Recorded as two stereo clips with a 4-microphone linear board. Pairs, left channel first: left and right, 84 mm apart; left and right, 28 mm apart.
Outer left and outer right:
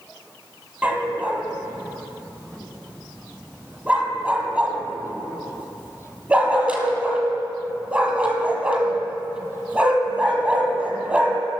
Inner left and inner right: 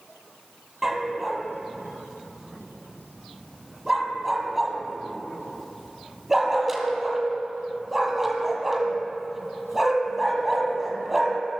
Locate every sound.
0.8 s a dog barking: 15° right (ahead or behind), 1.7 m